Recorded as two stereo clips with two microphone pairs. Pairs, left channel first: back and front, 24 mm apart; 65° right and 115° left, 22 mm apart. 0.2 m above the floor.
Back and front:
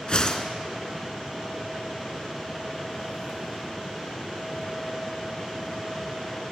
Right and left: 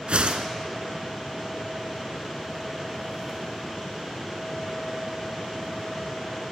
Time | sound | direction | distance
0.1 | a whoosh | 130° left | 0.7 m